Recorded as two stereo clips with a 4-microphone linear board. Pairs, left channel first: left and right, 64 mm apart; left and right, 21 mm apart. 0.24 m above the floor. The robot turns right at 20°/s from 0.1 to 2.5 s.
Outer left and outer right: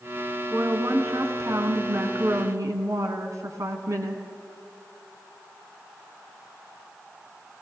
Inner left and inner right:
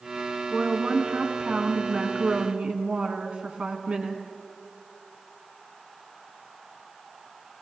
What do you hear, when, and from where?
0.5 s a woman speaking: 125° right, 2 m; by 4.2 s 85° right, 2 m